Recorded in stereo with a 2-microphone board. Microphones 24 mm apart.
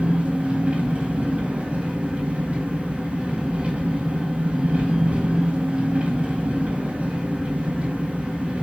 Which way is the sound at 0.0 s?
75° right (ahead or behind).